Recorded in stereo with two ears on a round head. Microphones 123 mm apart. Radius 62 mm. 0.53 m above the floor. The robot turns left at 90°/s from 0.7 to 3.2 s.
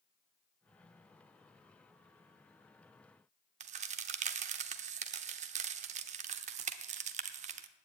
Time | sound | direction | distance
3.6 | a crack | 55° right (ahead or behind) | 0.8 m